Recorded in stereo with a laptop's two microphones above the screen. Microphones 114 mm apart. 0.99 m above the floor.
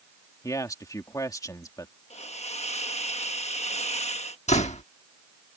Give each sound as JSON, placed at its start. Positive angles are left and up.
{"t": 0.4, "sound": "a man speaking", "side_deg": 30}
{"t": 2.1, "sound": "a hiss", "side_deg": 75}
{"t": 4.5, "sound": "a door slam", "side_deg": 85}